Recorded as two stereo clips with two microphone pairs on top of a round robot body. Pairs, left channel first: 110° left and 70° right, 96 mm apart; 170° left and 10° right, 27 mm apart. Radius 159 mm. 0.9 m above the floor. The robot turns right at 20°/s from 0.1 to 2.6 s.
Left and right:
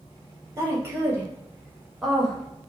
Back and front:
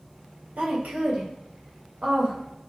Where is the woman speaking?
10° right, 1.1 m; by 2.4 s 25° left, 1.1 m.